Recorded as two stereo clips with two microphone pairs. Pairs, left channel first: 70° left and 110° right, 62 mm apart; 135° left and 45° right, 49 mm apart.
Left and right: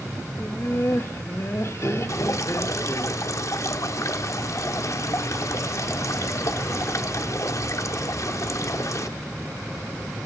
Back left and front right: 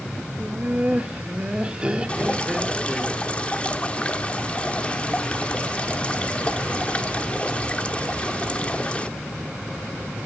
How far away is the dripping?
About 1.1 m.